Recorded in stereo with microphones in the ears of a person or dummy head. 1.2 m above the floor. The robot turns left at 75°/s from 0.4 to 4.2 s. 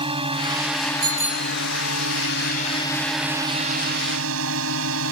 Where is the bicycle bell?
160° right; by 1.6 s 160° left.